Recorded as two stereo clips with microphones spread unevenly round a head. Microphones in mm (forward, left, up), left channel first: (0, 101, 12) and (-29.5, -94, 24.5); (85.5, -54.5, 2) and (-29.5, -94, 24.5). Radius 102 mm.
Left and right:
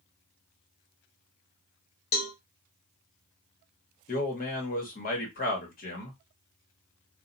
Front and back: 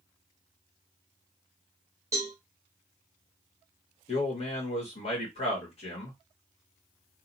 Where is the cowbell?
120° left, 0.8 m.